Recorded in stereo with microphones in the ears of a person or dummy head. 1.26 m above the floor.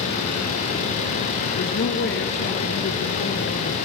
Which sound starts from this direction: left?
A woman speaking, at 1.6 s.